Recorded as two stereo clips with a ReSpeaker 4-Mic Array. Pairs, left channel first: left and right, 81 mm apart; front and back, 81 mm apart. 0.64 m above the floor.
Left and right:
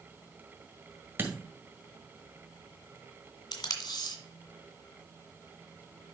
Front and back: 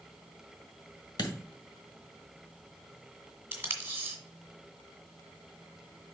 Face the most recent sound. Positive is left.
turn(degrees=115)